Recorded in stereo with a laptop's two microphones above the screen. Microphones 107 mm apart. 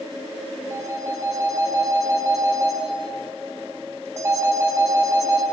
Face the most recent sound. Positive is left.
turn(degrees=-25)  # may be behind; listen again after turning